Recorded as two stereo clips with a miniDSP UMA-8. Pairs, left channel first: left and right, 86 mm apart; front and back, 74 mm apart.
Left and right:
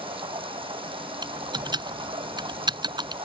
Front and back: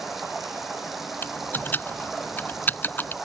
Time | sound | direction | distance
0.0 | running water | 95° right | ?
1.2 | typing on a keyboard | 65° right | ?